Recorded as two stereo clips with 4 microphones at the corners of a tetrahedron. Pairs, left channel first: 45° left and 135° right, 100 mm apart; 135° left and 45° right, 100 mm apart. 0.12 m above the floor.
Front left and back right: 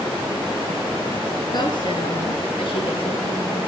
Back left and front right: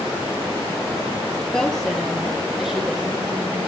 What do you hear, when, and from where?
1.5 s a woman speaking: 50° left, 2.5 m; by 3.6 s 40° left, 5 m